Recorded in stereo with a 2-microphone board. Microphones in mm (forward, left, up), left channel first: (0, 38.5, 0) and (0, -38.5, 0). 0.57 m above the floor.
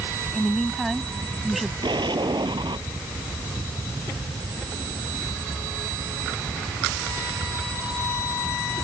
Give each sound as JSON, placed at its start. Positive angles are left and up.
{"t": 0.3, "sound": "a woman speaking", "side_deg": 0}
{"t": 1.8, "sound": "an explosion", "side_deg": -85}